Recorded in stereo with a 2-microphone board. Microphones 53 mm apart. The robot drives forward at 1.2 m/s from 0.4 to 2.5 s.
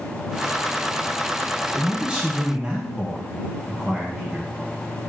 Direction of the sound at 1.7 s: 25° right (ahead or behind).